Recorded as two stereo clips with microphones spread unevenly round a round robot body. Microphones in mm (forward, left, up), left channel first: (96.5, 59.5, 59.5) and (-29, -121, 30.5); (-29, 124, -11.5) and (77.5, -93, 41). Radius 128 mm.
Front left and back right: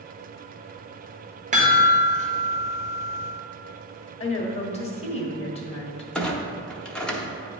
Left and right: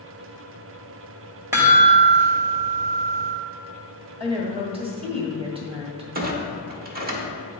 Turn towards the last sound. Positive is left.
turn(degrees=-45)